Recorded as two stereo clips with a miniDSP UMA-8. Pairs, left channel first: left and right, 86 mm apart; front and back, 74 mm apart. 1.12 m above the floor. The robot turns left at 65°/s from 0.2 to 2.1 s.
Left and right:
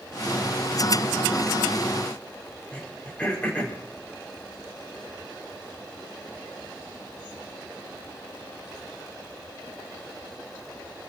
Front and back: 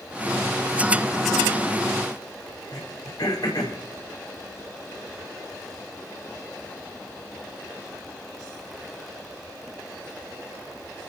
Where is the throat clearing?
20° left, 5.5 m.